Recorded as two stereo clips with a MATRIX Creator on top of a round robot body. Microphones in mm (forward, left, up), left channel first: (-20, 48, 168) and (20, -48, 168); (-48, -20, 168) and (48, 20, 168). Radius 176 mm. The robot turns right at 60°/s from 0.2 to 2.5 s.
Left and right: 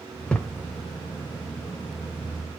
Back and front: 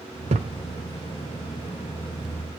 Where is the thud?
30° left, 1.1 m; by 0.6 s 45° left, 1.1 m.